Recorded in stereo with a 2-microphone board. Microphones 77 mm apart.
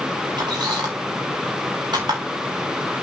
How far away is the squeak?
About 4.5 m.